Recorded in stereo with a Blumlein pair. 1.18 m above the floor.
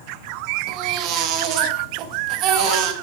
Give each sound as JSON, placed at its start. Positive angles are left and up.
{"t": 0.7, "sound": "a baby crying", "azimuth_deg": -35, "distance_m": 1.0}